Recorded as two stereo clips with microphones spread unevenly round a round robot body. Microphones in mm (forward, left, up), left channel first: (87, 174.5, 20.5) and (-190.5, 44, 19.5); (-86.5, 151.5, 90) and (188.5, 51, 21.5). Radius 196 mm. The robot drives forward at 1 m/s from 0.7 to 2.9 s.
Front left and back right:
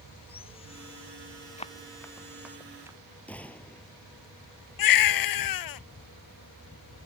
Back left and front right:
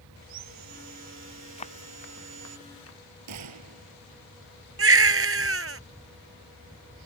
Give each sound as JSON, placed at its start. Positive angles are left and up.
{"t": 0.2, "sound": "sawing", "azimuth_deg": -50}
{"t": 1.6, "sound": "running footsteps", "azimuth_deg": 95}
{"t": 3.3, "sound": "a gunshot", "azimuth_deg": -60}
{"t": 4.8, "sound": "a baby crying", "azimuth_deg": 20}